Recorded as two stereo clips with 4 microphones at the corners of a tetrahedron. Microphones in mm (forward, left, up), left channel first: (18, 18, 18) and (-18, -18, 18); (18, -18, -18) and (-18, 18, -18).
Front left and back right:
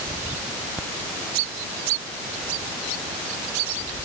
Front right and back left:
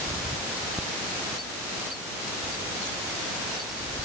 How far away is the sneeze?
No sneeze in this recording.